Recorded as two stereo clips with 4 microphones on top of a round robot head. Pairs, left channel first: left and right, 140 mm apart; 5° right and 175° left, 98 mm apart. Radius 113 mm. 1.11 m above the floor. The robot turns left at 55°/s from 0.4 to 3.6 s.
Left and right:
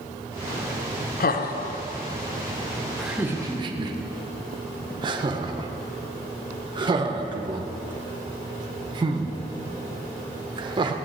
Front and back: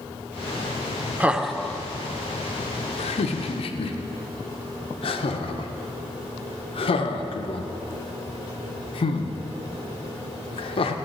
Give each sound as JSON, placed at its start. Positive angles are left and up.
{"t": 1.2, "sound": "laughter", "azimuth_deg": 100, "distance_m": 0.6}